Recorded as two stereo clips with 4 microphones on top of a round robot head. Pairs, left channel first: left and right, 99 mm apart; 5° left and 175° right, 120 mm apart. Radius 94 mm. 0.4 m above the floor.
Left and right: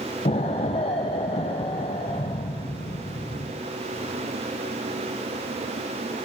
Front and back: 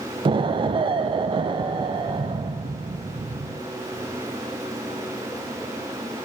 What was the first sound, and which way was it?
An explosion, 135° left.